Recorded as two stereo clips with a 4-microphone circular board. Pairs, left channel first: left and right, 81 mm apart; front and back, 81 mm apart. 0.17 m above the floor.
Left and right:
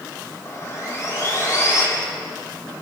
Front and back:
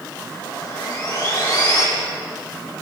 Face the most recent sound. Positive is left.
turn(degrees=35)